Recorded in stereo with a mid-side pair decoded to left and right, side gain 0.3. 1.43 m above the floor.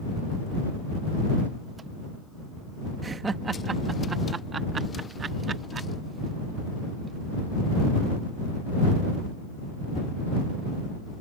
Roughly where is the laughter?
Ahead right.